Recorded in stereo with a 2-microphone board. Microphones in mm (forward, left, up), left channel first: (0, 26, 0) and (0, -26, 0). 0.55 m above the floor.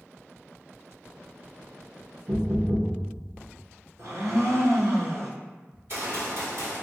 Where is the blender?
75° right (ahead or behind), 1.2 m.